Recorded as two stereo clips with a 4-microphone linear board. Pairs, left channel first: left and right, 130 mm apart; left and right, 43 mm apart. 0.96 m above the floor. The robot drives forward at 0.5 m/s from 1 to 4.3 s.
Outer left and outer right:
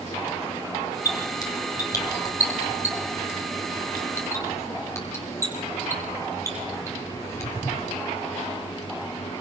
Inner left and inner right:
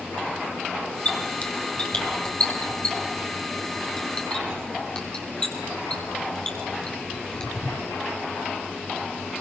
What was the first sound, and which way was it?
A squeak, 30° left (ahead or behind).